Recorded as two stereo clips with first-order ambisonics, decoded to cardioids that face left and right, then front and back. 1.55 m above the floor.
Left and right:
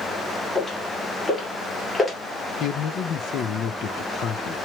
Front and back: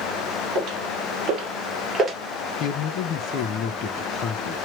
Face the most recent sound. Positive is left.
turn(degrees=40)